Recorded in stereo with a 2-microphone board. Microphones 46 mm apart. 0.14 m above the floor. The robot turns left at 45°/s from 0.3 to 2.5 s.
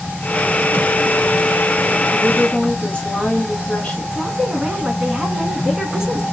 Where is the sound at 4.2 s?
15° right (ahead or behind), 1.1 m.